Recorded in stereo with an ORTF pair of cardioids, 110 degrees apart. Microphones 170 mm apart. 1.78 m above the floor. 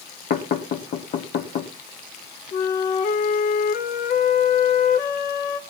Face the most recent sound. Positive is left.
turn(degrees=60)